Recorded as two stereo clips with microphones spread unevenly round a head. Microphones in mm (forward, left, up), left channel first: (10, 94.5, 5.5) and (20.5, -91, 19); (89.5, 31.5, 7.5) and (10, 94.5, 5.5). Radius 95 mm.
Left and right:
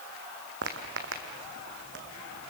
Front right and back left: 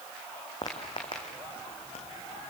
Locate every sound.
0.6 s footsteps: 100° right, 2.5 m; by 2.5 s 70° right, 3 m